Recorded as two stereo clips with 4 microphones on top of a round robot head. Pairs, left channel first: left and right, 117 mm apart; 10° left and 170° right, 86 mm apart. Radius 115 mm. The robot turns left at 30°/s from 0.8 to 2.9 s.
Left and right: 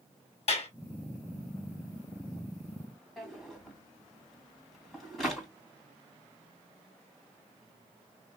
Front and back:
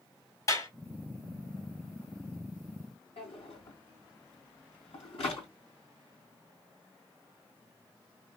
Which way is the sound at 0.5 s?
60° left.